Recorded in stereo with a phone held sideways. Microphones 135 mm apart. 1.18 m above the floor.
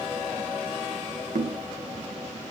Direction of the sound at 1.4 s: 70° right (ahead or behind).